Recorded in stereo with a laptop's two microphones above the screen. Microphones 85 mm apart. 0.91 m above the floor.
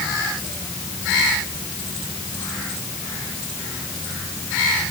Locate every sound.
Only background noise.